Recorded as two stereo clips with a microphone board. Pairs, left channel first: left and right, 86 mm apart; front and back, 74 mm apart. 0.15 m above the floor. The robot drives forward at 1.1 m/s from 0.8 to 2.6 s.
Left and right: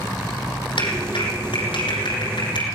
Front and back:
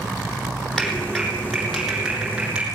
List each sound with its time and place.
0.8 s a clap: 80° left, 5.5 m; by 2.6 s 100° left, 5.5 m